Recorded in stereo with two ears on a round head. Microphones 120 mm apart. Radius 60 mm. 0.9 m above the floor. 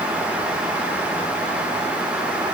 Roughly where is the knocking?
No knocking in this recording.